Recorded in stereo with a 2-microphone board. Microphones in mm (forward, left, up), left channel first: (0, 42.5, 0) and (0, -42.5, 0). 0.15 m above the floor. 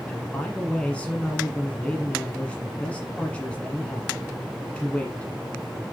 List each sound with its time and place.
0.1 s a man speaking: 15° left (ahead or behind), 1.4 m